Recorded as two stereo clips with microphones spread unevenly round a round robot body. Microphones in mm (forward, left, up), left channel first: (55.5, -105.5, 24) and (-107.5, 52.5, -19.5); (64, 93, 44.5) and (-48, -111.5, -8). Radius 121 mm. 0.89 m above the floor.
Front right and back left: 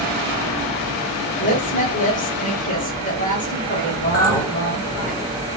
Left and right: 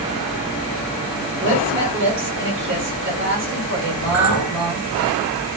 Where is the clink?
135° right, 1.0 m.